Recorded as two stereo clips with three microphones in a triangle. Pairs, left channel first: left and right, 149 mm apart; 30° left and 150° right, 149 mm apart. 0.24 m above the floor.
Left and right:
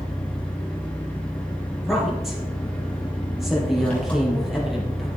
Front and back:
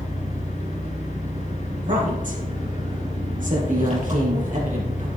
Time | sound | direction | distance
0.0 | an engine running | 170° left | 5 m
1.7 | a woman speaking | straight behind | 5 m